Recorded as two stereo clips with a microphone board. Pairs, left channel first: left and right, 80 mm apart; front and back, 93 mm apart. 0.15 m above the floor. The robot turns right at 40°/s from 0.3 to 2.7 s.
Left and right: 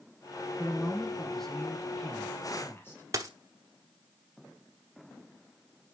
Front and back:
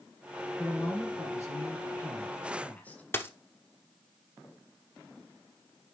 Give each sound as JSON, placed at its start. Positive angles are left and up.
{"t": 0.6, "sound": "a man speaking", "azimuth_deg": -25, "distance_m": 1.5}
{"t": 3.1, "sound": "a dropped coin", "azimuth_deg": -55, "distance_m": 1.0}